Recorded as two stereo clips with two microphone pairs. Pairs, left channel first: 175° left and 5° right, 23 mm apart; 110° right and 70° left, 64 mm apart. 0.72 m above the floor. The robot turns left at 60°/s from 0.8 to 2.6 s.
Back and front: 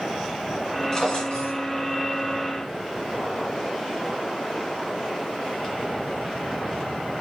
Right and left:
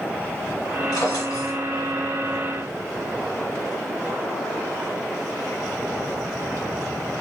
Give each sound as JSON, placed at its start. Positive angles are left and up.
{"t": 0.9, "sound": "a drawer", "azimuth_deg": -110, "distance_m": 2.0}